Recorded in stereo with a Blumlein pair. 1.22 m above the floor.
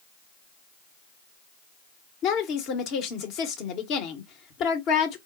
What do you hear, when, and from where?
2.2 s a woman speaking: 40° left, 1.2 m